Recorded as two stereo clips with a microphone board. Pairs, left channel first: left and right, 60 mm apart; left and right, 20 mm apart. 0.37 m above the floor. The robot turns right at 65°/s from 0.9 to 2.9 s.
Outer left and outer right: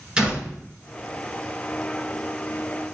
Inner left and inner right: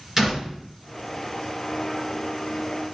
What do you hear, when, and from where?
0.2 s a door slam: 15° right (ahead or behind), 2 m